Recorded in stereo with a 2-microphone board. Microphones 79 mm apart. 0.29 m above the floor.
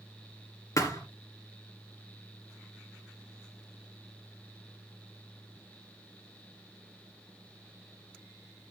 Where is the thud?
50° left (ahead or behind), 2.5 m.